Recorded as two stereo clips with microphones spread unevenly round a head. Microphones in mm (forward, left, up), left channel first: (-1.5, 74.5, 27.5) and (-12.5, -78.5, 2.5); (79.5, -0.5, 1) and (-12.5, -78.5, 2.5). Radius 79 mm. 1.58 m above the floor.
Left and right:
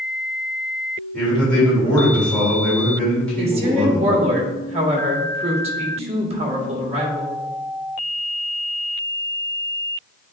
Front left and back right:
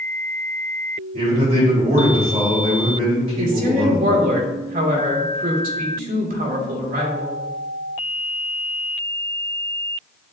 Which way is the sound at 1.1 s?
170° left.